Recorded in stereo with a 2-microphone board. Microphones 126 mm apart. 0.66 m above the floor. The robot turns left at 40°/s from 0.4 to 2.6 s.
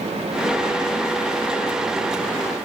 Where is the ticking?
I don't hear ticking.